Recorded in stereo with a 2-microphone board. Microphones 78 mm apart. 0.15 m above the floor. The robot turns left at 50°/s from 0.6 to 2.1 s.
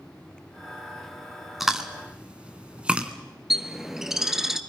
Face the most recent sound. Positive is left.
turn(degrees=-5)  # may be behind; listen again after turning